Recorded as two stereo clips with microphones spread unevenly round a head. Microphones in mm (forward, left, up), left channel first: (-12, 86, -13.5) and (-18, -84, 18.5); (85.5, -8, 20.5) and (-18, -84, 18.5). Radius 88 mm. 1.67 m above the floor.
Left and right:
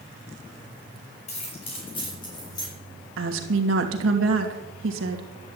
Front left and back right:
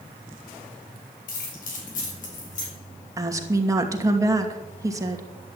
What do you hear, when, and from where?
1.3 s keys jangling: 30° left, 5.5 m; by 2.7 s 15° left, 7 m
3.2 s a woman speaking: 80° right, 2.5 m